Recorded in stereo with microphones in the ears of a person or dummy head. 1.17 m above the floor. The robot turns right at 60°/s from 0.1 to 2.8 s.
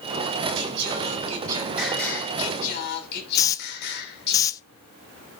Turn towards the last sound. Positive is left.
turn(degrees=20)  # may be behind; listen again after turning